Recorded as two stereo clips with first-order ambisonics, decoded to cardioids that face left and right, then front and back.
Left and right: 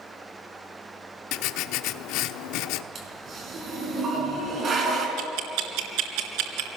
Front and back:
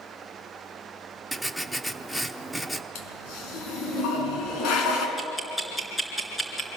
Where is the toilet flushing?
30° right, 4 m.